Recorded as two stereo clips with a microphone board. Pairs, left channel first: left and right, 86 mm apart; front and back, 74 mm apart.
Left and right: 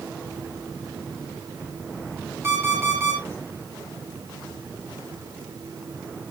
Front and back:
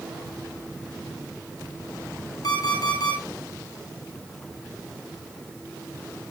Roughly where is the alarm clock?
Ahead right.